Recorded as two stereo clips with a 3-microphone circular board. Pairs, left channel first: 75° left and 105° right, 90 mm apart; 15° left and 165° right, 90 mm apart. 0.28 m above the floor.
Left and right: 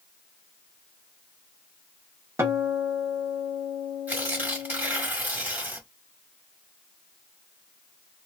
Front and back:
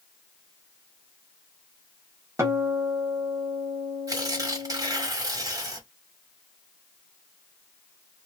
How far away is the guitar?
About 1.0 m.